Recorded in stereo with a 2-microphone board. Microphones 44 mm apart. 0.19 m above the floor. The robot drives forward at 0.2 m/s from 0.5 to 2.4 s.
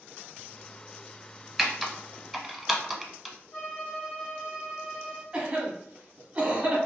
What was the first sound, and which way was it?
Typing on a keyboard, centre (ahead or behind).